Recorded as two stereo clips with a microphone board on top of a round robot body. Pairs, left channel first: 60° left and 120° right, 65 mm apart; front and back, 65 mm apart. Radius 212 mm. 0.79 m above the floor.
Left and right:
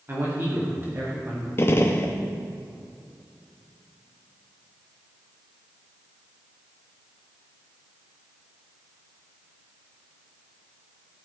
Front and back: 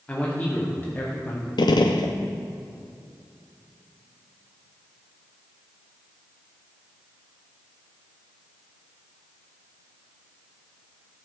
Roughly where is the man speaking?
Right.